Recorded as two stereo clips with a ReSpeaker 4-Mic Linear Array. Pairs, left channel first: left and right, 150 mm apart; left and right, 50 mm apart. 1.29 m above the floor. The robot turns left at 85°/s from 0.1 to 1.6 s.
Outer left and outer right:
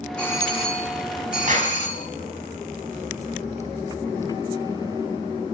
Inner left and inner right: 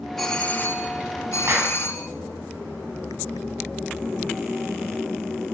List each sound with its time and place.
0.2 s a doorbell: 175° left, 5 m; by 2.1 s 55° left, 5 m
1.5 s a clap: 60° right (ahead or behind), 9.5 m; by 1.8 s 45° right (ahead or behind), 9.5 m